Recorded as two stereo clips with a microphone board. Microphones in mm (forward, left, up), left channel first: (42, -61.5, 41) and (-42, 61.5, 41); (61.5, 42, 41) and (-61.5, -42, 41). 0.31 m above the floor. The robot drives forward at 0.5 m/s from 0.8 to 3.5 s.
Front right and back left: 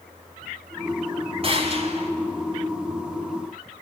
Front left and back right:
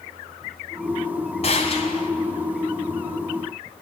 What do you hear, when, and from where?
1.4 s a gunshot: 75° left, 3 m; by 2.1 s 85° left, 3 m